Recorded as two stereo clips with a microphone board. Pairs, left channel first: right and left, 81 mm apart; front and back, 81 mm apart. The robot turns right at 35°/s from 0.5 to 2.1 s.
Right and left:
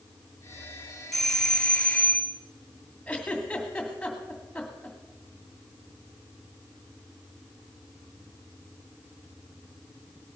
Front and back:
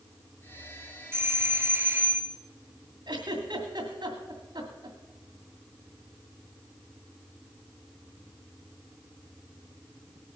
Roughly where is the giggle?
Behind.